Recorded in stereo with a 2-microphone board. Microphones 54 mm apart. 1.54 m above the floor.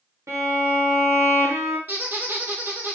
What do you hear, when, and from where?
0.3 s a violin: 80° right, 1.2 m
1.9 s a squeak: 35° right (ahead or behind), 1.9 m